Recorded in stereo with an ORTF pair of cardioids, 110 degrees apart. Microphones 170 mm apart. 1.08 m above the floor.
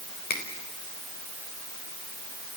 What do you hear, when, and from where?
0.3 s a finger snap: 60° left, 4 m